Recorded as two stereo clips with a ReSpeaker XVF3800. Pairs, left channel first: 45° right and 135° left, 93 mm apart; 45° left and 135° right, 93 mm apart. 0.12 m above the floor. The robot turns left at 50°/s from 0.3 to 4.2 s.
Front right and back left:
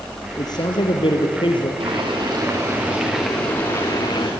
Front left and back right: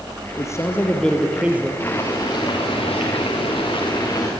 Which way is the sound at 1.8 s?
110° left.